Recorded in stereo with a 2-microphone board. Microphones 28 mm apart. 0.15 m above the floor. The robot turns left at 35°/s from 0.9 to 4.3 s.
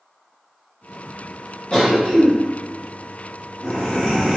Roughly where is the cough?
Left.